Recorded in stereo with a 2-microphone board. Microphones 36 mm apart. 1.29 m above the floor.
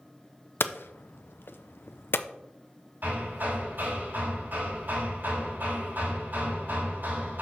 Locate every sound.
0.6 s hammering: 85° left, 0.5 m
3.0 s hammering: 65° right (ahead or behind), 4.5 m